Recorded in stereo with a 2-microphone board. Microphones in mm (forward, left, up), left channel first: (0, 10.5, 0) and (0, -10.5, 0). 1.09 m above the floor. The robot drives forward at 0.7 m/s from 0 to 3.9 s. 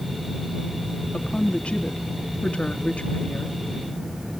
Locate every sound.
1.1 s a woman speaking: 65° left (ahead or behind), 2.5 m; by 3.6 s 70° left (ahead or behind), 2.5 m